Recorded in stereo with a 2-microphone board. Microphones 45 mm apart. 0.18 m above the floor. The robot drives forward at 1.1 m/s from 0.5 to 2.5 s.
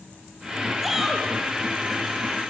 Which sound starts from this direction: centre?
A shout, at 0.8 s.